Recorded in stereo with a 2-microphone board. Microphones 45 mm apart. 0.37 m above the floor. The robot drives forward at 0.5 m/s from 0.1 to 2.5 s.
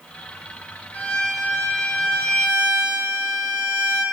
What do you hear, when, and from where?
0.9 s a violin: 30° left (ahead or behind), 5.5 m; by 4.0 s 35° left (ahead or behind), 4.5 m